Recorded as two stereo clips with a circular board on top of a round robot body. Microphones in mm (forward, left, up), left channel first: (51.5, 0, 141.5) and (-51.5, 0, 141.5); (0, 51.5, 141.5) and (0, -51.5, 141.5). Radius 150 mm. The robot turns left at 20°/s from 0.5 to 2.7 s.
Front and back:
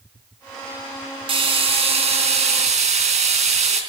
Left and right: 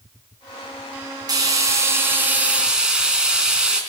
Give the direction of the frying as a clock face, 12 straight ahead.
5 o'clock.